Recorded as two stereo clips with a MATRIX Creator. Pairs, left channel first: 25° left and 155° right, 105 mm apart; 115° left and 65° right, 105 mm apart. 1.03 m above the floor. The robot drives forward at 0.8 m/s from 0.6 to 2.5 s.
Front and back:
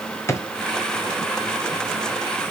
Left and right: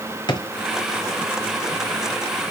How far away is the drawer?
About 1.2 m.